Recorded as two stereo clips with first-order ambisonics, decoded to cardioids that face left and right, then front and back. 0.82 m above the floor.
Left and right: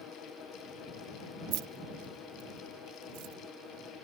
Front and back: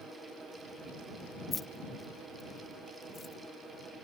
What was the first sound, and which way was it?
Keys jangling, 75° right.